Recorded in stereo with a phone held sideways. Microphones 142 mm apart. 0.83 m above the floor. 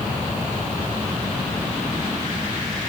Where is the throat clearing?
I don't hear throat clearing.